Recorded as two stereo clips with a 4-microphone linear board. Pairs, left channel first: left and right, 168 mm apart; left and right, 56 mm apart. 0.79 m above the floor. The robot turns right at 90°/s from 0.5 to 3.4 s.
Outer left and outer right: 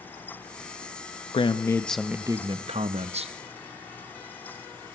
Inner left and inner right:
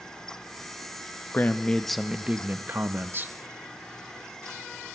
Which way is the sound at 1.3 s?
125° left.